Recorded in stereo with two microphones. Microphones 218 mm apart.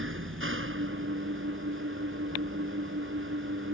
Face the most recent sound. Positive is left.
turn(degrees=-65)  # may be behind; listen again after turning